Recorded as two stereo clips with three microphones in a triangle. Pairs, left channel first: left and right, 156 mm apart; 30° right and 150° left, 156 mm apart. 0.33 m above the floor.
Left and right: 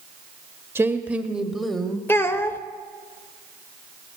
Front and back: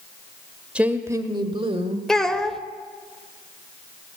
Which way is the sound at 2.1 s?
50° left.